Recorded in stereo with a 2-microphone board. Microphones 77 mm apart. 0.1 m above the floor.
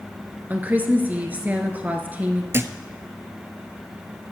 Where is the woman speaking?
20° right (ahead or behind), 1.3 m.